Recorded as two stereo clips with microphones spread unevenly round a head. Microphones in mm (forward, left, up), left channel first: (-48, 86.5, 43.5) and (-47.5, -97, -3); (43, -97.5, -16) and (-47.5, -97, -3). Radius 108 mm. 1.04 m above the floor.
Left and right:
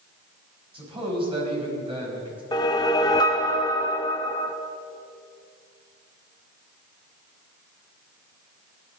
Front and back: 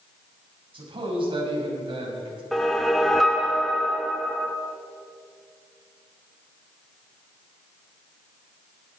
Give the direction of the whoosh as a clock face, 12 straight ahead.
9 o'clock.